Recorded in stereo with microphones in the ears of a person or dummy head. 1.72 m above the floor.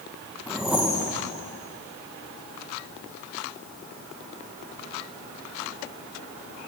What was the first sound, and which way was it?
A whoosh, 5° right (ahead or behind).